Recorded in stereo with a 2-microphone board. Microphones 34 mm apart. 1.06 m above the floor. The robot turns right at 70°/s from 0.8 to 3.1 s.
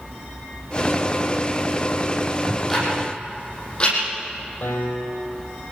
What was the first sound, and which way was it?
Ticking, 20° right (ahead or behind).